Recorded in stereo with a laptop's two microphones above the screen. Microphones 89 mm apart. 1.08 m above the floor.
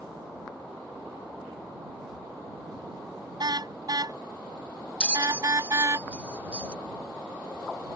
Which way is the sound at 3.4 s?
55° right (ahead or behind).